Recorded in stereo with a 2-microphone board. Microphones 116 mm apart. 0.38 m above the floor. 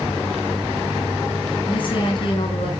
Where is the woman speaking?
45° left (ahead or behind), 5.5 m; by 2.7 s 50° left (ahead or behind), 6 m.